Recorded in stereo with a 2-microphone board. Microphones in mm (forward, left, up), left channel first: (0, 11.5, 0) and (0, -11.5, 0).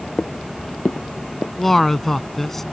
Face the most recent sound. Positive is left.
turn(degrees=15)  # may be behind; listen again after turning